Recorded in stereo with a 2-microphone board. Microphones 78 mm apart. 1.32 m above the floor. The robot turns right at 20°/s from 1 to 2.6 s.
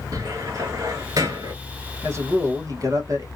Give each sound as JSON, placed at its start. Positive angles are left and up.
{"t": 0.1, "sound": "a cupboard door", "side_deg": -50, "distance_m": 1.0}
{"t": 2.0, "sound": "a man speaking", "side_deg": -35, "distance_m": 1.2}